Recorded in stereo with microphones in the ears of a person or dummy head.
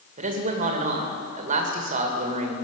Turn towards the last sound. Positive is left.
turn(degrees=-40)  # may be behind; listen again after turning